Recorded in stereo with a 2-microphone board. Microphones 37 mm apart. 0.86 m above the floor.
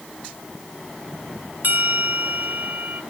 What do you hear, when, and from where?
1.6 s a bell: 65° right (ahead or behind), 1.6 m